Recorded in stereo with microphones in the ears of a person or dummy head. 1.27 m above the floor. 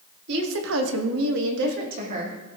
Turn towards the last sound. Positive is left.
turn(degrees=-40)  # may be behind; listen again after turning